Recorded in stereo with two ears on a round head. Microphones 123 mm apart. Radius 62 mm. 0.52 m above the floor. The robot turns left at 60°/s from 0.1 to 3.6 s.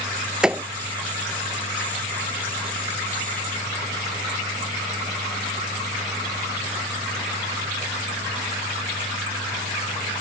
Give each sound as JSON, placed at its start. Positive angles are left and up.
{"t": 0.4, "sound": "a thud", "side_deg": -5}